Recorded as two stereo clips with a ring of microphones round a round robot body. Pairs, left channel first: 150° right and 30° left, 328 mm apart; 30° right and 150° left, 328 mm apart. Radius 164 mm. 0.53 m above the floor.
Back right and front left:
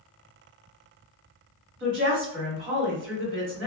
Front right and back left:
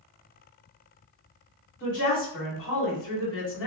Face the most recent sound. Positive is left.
turn(degrees=-5)